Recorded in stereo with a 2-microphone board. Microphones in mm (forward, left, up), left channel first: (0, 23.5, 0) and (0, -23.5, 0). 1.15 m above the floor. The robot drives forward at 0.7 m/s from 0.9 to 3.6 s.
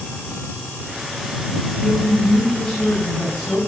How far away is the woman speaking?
About 9 m.